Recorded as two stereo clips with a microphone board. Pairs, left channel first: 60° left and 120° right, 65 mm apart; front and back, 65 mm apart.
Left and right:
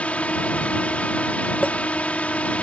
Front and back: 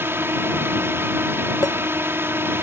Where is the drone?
130° left.